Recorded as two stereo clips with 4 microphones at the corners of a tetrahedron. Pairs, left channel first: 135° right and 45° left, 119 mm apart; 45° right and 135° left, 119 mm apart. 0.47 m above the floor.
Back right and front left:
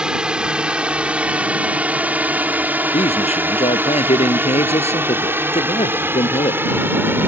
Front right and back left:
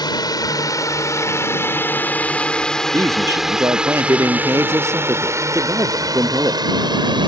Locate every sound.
0.0 s a drone: 35° right; by 7.3 s 110° left
2.9 s a man speaking: 160° right